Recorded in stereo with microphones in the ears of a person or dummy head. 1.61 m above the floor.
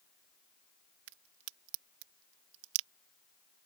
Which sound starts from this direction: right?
A crack, at 1.1 s.